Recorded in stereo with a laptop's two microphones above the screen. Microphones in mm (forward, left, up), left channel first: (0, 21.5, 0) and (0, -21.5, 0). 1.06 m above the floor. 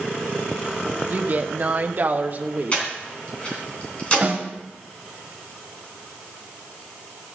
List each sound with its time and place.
1.1 s a woman speaking: 40° right (ahead or behind), 0.9 m
2.7 s breathing: 30° left (ahead or behind), 3 m
4.2 s a snare drum: 30° right (ahead or behind), 1.8 m